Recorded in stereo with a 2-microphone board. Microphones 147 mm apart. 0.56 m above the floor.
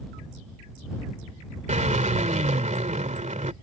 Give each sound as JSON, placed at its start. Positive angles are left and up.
{"t": 1.7, "sound": "a drill", "side_deg": -60}